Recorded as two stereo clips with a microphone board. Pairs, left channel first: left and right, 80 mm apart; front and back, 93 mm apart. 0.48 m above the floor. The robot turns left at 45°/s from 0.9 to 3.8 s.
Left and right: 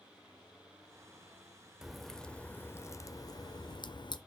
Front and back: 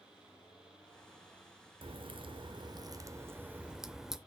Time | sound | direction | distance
1.8 | a crack | 175° right | 0.6 m